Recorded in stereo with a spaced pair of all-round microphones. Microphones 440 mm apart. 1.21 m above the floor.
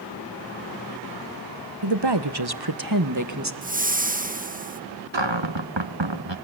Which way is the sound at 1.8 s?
65° right (ahead or behind).